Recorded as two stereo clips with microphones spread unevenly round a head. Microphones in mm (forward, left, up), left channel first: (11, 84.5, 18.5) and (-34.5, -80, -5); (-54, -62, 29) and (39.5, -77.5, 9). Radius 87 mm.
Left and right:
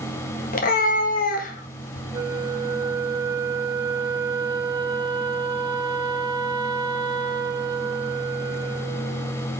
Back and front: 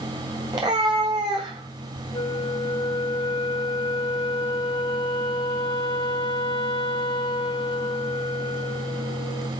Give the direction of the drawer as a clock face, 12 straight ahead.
No drawer in this recording.